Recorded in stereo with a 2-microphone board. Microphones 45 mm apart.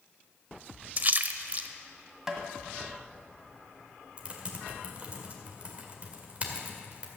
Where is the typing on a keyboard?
30° right (ahead or behind), 1.8 m.